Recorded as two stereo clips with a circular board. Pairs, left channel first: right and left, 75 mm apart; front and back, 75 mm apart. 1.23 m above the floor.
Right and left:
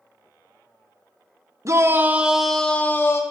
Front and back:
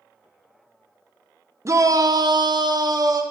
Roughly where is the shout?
Behind left.